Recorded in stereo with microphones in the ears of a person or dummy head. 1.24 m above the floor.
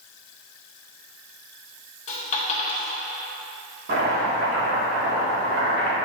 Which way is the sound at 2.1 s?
40° left (ahead or behind).